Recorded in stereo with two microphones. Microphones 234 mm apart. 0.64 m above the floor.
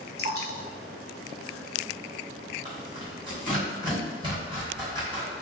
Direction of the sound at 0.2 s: 70° left (ahead or behind).